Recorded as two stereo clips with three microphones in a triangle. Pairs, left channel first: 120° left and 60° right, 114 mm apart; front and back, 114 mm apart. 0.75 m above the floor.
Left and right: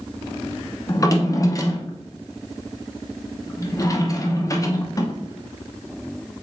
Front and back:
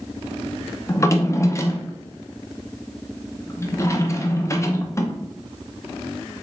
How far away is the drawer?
About 0.5 m.